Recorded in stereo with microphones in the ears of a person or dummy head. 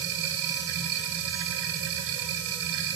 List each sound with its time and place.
0.0 s a machine running: 75° right (ahead or behind), 1.1 m